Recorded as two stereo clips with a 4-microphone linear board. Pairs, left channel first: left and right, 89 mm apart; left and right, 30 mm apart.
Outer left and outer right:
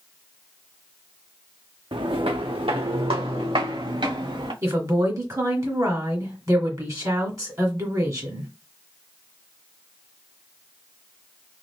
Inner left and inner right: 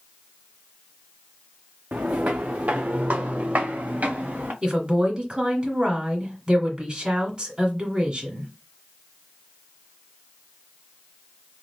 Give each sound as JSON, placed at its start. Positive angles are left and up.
{"t": 1.9, "sound": "footsteps", "side_deg": -65, "distance_m": 0.8}
{"t": 4.6, "sound": "a woman speaking", "side_deg": -40, "distance_m": 1.9}